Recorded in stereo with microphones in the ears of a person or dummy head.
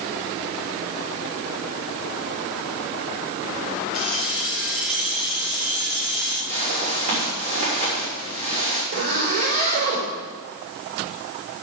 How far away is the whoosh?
About 5 m.